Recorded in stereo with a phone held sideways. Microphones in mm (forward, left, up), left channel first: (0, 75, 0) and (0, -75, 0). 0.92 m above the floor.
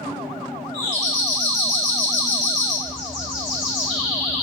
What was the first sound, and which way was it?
A doorbell, 25° right (ahead or behind).